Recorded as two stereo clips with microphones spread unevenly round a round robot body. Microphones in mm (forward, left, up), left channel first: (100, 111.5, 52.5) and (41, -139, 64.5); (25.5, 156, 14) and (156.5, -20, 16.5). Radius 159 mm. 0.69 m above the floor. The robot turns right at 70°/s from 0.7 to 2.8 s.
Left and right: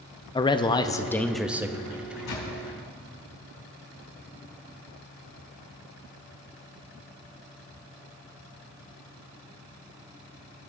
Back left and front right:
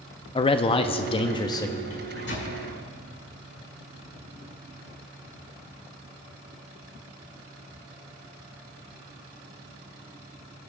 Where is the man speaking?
115° left, 0.5 m; by 1.8 s 170° right, 0.5 m.